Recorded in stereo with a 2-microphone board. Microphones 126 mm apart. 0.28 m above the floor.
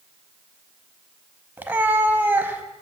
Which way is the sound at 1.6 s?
15° right (ahead or behind).